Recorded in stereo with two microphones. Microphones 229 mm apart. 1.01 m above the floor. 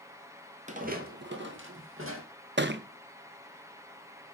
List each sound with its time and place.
0.7 s footsteps: 30° right (ahead or behind), 1.2 m; by 2.2 s 65° right (ahead or behind), 2.5 m
2.6 s a thud: 50° right (ahead or behind), 0.6 m